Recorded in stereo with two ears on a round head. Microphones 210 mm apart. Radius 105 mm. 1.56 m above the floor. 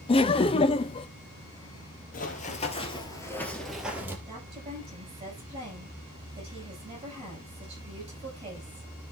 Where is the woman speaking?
25° right (ahead or behind), 9 m.